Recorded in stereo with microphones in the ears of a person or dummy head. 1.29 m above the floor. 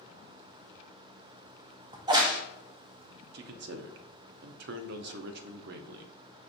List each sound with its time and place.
1.9 s a crack: 25° right (ahead or behind), 0.7 m
3.3 s a man speaking: 65° right (ahead or behind), 0.6 m